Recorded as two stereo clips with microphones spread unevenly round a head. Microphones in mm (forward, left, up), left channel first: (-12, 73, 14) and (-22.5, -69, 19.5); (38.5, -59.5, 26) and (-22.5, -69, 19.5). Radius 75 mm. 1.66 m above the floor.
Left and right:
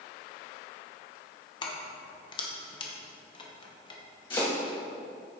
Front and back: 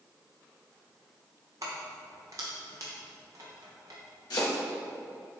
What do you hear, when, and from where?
1.6 s keys jangling: 135° left, 0.9 m
4.3 s chopping: 25° left, 1.8 m